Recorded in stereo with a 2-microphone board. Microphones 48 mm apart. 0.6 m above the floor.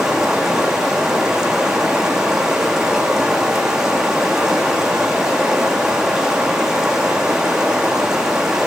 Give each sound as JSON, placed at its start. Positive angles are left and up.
{"t": 0.0, "sound": "running water", "side_deg": -10, "distance_m": 4.5}